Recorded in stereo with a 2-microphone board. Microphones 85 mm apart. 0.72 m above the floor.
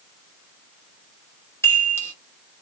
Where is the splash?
No splash in this recording.